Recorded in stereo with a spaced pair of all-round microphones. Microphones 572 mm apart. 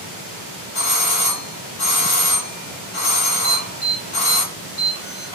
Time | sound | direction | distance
0.8 | a doorbell | 60° left (ahead or behind) | 1.2 m
3.4 | an alarm | 75° left (ahead or behind) | 2.5 m